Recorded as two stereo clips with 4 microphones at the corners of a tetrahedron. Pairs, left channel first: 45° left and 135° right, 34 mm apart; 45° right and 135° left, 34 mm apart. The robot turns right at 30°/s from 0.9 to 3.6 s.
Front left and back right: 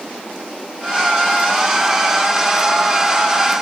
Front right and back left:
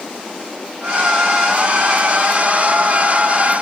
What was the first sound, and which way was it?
Only background noise.